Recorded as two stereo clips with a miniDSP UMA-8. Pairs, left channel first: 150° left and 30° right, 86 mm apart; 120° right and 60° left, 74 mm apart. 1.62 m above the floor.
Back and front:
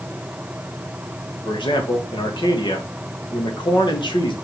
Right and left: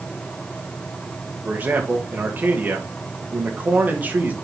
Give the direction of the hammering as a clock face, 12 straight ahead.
No hammering in this recording.